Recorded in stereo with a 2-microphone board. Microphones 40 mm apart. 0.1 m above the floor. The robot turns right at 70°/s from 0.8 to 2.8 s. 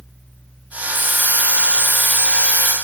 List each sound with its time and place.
0.9 s a hiss: 75° right, 3 m; by 2.7 s 50° left, 3 m